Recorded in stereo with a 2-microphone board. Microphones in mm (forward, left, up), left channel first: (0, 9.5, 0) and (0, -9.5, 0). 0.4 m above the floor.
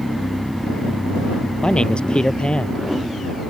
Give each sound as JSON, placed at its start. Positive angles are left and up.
{"t": 1.6, "sound": "a man speaking", "side_deg": 60}